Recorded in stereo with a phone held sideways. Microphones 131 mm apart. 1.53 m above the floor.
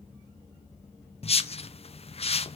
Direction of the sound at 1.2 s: 50° left (ahead or behind).